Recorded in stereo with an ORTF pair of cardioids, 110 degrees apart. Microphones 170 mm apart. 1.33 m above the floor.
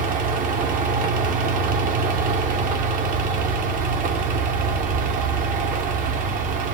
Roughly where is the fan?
Ahead right.